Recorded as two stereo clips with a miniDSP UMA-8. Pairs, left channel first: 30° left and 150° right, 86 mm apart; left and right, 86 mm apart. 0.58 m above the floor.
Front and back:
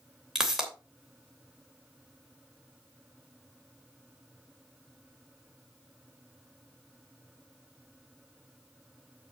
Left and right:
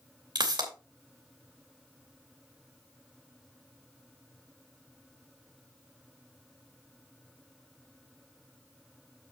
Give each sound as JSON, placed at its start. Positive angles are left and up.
{"t": 0.3, "sound": "a pop", "azimuth_deg": -65, "distance_m": 3.0}